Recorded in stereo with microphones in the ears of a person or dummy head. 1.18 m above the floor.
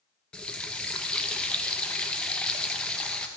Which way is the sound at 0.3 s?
5° left (ahead or behind).